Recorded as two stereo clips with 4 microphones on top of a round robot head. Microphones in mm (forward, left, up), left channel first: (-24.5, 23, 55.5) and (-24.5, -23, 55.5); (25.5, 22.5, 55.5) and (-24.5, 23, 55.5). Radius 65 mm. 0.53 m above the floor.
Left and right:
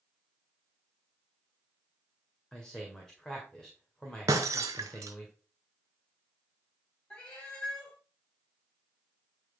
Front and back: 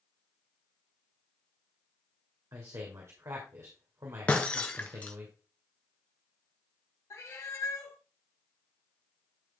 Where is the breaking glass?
75° right, 0.6 m.